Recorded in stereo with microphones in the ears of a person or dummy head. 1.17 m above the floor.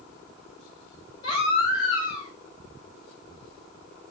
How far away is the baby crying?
About 4 m.